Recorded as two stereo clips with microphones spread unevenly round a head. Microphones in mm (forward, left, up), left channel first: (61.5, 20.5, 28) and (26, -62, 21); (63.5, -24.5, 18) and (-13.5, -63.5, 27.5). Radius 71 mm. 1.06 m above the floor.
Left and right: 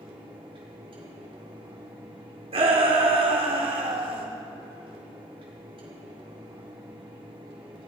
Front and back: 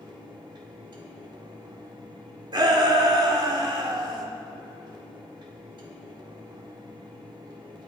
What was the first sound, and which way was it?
A fan, 125° right.